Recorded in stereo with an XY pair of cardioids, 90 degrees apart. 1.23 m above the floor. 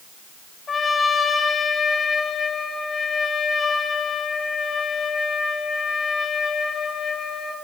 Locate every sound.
0.7 s a trumpet: 40° left, 2 m